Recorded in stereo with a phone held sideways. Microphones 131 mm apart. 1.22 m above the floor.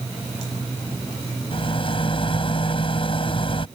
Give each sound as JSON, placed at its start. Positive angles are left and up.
{"t": 1.5, "sound": "a rattle", "side_deg": 45}